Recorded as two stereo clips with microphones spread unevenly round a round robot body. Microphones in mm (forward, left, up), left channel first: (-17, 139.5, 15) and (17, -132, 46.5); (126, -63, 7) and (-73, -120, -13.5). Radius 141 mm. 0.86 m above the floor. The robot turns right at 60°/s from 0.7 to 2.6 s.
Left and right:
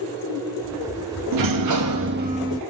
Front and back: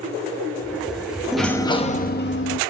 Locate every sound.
1.3 s a sliding door: 80° right, 0.7 m; by 2.6 s straight ahead, 0.7 m